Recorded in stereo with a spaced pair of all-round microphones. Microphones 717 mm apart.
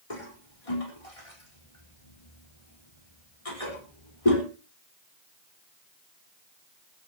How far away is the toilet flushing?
About 4.5 m.